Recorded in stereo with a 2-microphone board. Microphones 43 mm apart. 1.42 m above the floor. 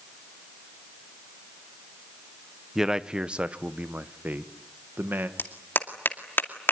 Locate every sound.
2.8 s a man speaking: 10° right (ahead or behind), 1.0 m; by 5.3 s 60° right (ahead or behind), 1.7 m
5.4 s a clap: 60° left (ahead or behind), 2.5 m